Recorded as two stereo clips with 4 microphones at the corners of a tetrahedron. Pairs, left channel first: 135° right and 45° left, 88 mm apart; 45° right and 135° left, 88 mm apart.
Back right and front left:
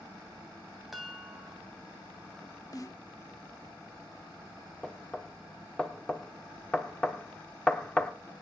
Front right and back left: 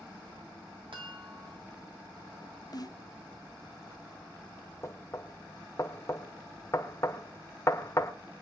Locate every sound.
0.9 s a chime: 135° left, 3 m
2.7 s a snare drum: 85° right, 0.9 m
4.8 s knocking: 60° right, 1.2 m